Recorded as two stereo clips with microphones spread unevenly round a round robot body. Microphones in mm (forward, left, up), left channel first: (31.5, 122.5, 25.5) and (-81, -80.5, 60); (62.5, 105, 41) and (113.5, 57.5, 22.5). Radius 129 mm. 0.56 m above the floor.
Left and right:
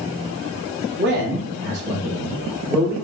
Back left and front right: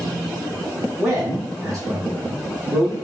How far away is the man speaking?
About 0.9 m.